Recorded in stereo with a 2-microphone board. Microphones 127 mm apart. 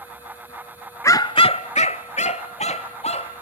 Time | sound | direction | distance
1.0 | a dog barking | 25° left (ahead or behind) | 0.7 m